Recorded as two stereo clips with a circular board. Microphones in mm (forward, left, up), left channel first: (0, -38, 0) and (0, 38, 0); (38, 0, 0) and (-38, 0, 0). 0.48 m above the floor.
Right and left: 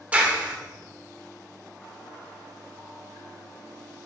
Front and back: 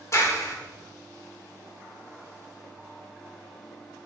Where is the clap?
25° left, 1.1 m.